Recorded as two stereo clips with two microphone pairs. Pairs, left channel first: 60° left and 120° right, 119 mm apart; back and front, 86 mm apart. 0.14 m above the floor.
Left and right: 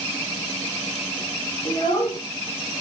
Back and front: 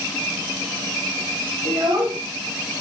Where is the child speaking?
10° left, 5 m.